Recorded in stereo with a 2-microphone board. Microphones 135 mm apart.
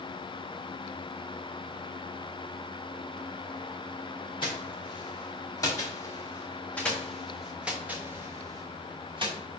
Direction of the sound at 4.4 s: 40° left (ahead or behind).